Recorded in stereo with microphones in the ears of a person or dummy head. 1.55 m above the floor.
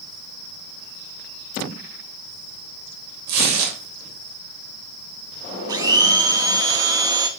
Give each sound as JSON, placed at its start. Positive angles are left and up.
{"t": 3.3, "sound": "tearing paper", "side_deg": -60, "distance_m": 3.0}
{"t": 5.7, "sound": "a blender", "side_deg": -20, "distance_m": 0.8}